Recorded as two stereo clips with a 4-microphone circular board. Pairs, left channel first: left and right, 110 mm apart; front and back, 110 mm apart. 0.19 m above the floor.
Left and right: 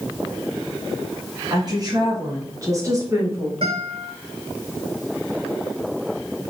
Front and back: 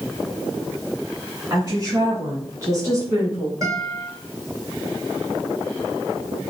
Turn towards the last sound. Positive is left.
turn(degrees=-120)